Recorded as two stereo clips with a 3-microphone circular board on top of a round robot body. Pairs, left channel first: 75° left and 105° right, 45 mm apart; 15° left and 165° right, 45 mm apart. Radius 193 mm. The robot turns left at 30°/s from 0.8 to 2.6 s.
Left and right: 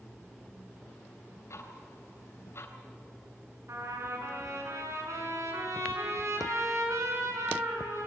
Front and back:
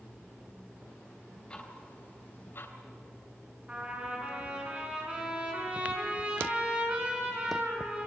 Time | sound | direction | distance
1.5 | ticking | 80° left | 3 m
3.7 | a trumpet | 100° right | 6 m